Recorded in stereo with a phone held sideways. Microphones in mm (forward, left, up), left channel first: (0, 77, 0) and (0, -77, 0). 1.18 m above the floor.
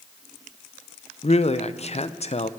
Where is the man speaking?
50° left (ahead or behind), 0.5 m.